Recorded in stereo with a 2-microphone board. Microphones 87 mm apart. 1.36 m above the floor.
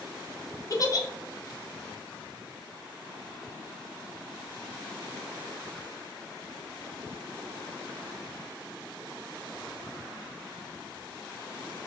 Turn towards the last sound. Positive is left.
turn(degrees=40)  # may be behind; listen again after turning